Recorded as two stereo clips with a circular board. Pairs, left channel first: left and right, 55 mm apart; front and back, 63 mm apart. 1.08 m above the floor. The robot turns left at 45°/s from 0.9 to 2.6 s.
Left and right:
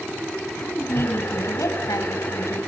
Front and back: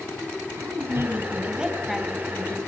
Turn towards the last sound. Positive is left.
turn(degrees=65)